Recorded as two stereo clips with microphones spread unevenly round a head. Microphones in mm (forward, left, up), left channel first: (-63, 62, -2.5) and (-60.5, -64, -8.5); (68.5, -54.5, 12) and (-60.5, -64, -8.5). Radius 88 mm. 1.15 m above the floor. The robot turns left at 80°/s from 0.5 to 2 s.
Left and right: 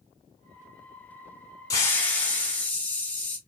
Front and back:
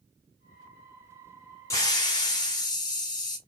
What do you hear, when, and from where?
1.7 s a hiss: 45° left, 0.8 m; by 3.4 s 20° left, 0.8 m